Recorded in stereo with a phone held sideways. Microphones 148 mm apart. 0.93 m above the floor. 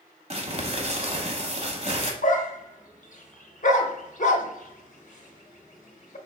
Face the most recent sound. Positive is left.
turn(degrees=55)  # may be behind; listen again after turning